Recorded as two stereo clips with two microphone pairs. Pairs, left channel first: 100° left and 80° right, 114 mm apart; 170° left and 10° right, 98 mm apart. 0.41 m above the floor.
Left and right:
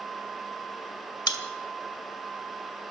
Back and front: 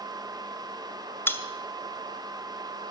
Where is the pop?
120° left, 1.6 m.